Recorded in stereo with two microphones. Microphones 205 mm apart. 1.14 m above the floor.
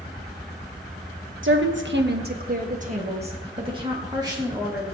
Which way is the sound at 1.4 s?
70° right (ahead or behind).